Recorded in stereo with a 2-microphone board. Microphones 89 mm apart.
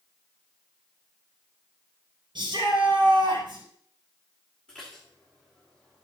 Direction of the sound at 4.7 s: 15° left (ahead or behind).